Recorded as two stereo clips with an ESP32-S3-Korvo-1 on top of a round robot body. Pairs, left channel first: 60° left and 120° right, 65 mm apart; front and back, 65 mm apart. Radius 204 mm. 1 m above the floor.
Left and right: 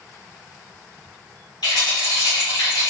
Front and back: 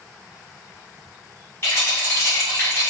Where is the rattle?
60° left, 0.6 m.